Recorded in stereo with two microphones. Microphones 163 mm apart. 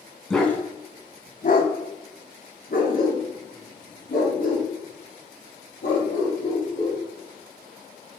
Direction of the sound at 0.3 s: 5° left (ahead or behind).